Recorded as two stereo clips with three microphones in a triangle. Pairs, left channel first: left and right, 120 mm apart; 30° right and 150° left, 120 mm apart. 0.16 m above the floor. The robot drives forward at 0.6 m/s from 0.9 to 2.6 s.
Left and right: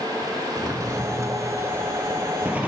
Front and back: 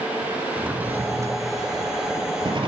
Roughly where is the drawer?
Behind right.